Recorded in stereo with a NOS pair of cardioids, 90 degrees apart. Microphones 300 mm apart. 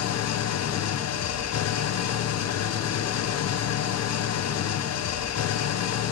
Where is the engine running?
60° left, 0.8 m.